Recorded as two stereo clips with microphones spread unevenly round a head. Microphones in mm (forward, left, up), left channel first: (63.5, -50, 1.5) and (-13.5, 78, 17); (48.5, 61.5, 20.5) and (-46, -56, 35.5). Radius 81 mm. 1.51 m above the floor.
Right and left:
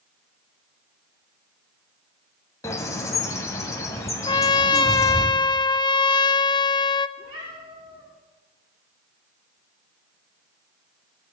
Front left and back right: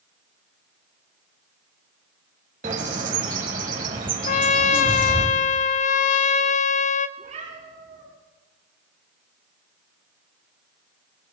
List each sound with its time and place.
2.6 s a bird: 130° right, 1.9 m
4.3 s a trumpet: 5° left, 0.5 m
7.2 s a cat meowing: 175° right, 8.5 m